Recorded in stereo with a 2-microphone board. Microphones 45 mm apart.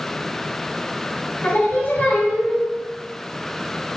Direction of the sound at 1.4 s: 55° left (ahead or behind).